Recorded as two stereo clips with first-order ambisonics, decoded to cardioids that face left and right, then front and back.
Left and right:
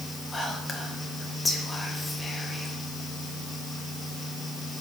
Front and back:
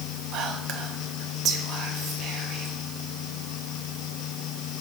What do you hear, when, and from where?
0.3 s whispering: 165° left, 0.5 m